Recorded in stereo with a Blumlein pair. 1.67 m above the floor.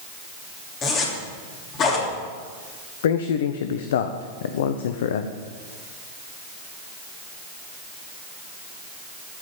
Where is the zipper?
30° left, 3 m.